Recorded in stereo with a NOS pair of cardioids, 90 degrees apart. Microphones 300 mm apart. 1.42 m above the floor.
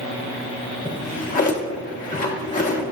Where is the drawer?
25° left, 1.6 m.